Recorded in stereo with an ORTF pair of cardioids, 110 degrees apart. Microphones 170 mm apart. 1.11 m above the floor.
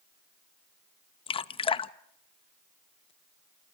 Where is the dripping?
30° left, 0.8 m.